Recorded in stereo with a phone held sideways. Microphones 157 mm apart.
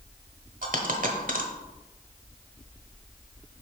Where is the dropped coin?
70° right (ahead or behind), 1.0 m.